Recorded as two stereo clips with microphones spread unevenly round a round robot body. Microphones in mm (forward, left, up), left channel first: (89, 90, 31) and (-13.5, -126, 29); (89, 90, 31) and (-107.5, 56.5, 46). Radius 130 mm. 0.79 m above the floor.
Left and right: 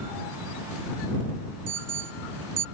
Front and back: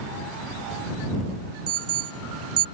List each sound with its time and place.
1.7 s an alarm: 165° right